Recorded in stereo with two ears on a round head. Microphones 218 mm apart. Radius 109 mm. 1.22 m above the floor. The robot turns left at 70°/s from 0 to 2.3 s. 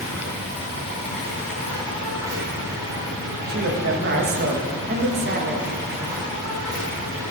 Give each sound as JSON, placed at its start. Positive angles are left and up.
{"t": 0.0, "sound": "an insect", "azimuth_deg": 145, "distance_m": 2.5}
{"t": 3.5, "sound": "a man speaking", "side_deg": -40, "distance_m": 1.3}